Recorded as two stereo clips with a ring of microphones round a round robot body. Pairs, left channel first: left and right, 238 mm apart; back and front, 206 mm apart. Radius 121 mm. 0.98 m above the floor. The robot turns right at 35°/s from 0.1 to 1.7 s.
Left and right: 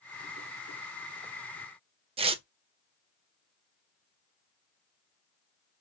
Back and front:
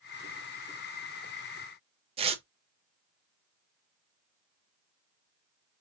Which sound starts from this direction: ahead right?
Tearing paper, at 2.2 s.